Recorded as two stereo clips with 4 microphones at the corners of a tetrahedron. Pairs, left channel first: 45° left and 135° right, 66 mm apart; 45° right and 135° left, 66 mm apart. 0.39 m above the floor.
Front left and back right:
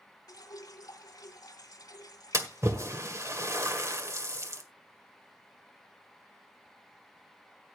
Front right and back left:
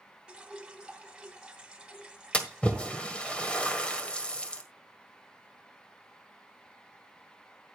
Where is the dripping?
60° left, 1.0 m.